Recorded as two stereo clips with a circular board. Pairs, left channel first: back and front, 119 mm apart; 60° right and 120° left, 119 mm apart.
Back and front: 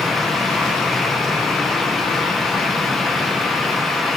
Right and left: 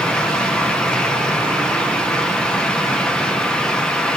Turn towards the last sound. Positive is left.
No sound to turn to.